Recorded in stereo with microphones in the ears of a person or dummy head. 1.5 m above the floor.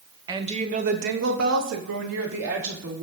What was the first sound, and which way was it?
A woman speaking, 20° right (ahead or behind).